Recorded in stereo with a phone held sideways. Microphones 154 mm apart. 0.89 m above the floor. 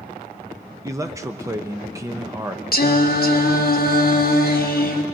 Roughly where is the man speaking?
Centre.